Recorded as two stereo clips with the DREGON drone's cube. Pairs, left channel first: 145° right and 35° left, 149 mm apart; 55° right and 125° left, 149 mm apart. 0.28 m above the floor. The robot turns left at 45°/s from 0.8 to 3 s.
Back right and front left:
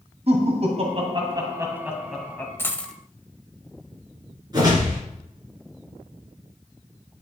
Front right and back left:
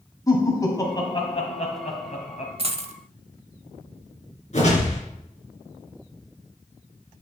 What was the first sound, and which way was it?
Laughter, 5° left.